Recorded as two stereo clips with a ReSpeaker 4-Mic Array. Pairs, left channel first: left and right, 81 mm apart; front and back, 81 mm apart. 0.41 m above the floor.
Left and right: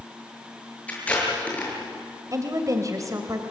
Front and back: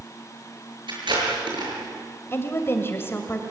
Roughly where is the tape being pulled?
Behind.